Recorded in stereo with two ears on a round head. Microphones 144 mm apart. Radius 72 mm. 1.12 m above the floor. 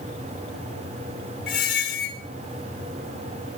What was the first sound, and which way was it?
A squeak, 65° left (ahead or behind).